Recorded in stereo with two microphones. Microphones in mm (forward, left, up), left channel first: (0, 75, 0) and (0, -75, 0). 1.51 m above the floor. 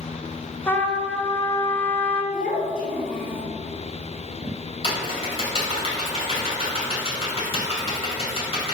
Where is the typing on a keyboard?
40° left (ahead or behind), 2.5 m.